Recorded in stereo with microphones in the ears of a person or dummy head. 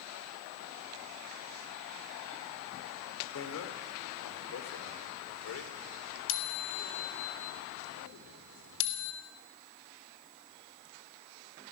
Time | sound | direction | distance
3.4 | a bicycle bell | 80° left | 3 m